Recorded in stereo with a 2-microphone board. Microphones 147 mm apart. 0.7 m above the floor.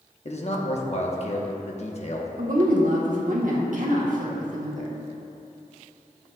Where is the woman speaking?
65° right (ahead or behind), 1.5 m.